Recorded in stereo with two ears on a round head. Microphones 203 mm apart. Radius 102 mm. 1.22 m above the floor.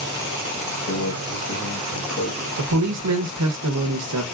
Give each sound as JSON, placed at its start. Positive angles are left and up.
{"t": 0.9, "sound": "a microwave", "side_deg": 55, "distance_m": 1.1}
{"t": 2.6, "sound": "a man speaking", "side_deg": -80, "distance_m": 0.6}